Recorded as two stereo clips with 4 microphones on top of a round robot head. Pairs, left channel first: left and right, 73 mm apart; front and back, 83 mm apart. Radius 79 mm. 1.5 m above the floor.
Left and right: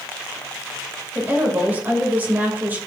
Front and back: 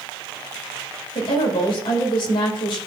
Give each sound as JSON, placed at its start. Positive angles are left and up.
{"t": 1.1, "sound": "a woman speaking", "azimuth_deg": -25, "distance_m": 2.5}